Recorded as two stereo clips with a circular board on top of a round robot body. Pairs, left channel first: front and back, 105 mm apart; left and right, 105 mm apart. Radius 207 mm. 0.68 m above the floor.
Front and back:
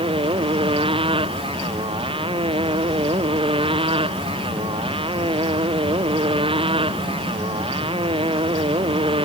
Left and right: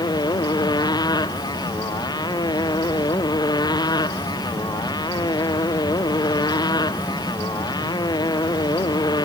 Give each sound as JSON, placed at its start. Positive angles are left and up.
{"t": 0.0, "sound": "a motorcycle", "azimuth_deg": 140}